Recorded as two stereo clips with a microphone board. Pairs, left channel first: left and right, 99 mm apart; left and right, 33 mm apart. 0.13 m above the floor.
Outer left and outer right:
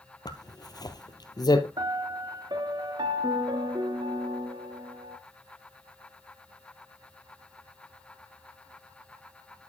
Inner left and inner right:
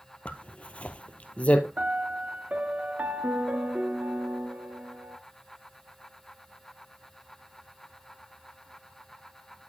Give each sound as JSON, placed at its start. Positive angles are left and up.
{"t": 0.2, "sound": "a zipper", "side_deg": 45, "distance_m": 1.1}
{"t": 1.8, "sound": "a piano", "side_deg": -50, "distance_m": 0.7}